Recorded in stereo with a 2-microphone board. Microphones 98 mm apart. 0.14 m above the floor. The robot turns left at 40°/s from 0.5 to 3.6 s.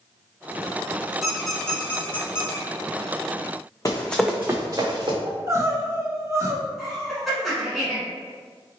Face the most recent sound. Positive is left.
turn(degrees=0)  # may be behind; listen again after turning